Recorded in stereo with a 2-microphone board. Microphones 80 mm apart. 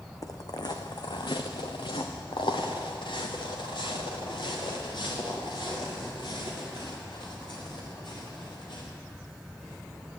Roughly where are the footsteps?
Left.